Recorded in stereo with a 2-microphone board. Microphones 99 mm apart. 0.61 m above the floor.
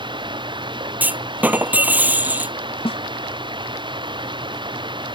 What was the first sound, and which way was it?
Running water, 50° right (ahead or behind).